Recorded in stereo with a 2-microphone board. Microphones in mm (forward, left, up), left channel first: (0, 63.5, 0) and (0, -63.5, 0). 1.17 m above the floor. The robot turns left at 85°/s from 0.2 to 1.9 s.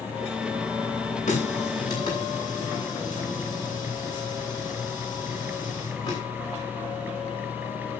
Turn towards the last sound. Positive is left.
turn(degrees=35)  # may be behind; listen again after turning